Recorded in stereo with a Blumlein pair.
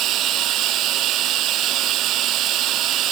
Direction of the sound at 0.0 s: 35° right.